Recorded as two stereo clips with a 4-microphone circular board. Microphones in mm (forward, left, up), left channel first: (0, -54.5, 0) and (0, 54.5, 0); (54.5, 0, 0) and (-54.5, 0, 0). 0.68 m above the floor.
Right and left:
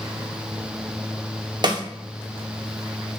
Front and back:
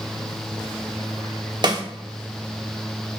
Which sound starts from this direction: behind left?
A snare drum, at 1.6 s.